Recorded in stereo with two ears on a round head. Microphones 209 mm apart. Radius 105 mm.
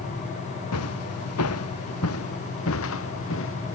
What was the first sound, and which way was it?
Footsteps, 75° left (ahead or behind).